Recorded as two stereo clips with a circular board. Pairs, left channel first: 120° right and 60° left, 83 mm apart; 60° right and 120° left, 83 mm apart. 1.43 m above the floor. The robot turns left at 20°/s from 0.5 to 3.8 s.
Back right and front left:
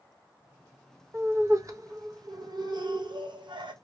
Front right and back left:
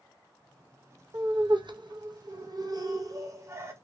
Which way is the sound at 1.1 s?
115° left.